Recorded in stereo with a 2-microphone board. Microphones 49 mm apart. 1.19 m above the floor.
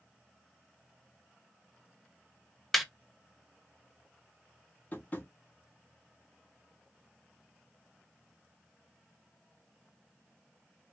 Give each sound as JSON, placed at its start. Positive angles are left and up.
{"t": 2.7, "sound": "laughter", "side_deg": 0, "distance_m": 0.5}
{"t": 4.9, "sound": "tapping", "side_deg": 35, "distance_m": 0.9}